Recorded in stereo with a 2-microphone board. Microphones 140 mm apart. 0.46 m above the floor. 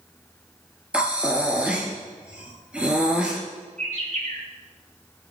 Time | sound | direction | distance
0.9 | breathing | 10° right (ahead or behind) | 2.5 m
3.8 | a bird | 65° right (ahead or behind) | 7 m